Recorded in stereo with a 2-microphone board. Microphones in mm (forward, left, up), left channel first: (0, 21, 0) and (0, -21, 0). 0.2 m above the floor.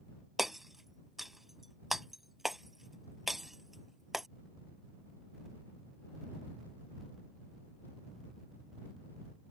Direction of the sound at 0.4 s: 5° right (ahead or behind).